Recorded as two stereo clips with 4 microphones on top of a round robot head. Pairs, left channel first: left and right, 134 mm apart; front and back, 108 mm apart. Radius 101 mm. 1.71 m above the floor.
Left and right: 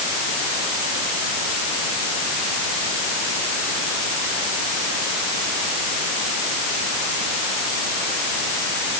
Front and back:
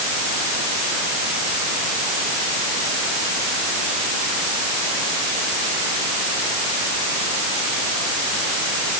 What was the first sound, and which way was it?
Only background noise.